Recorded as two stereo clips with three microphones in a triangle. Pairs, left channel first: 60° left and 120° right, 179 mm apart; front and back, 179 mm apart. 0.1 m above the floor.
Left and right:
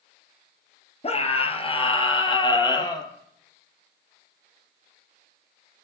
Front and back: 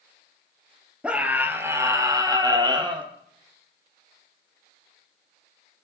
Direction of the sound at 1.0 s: 100° left.